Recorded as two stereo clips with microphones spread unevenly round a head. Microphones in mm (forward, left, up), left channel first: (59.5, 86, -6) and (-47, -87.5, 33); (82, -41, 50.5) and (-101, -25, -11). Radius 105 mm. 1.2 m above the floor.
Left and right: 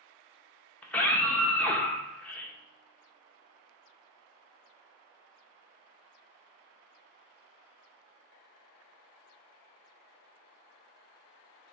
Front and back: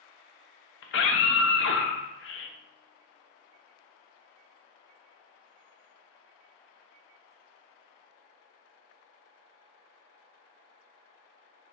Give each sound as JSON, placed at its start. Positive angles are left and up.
{"t": 0.8, "sound": "a scream", "azimuth_deg": -25, "distance_m": 1.0}